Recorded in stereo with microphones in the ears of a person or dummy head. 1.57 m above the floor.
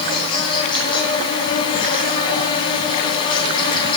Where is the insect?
20° left (ahead or behind), 3 m.